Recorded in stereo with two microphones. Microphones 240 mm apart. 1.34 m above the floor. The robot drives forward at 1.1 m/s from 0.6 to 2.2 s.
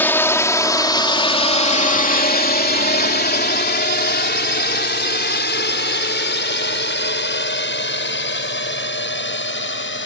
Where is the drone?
10° left (ahead or behind); by 10.1 s 55° left (ahead or behind).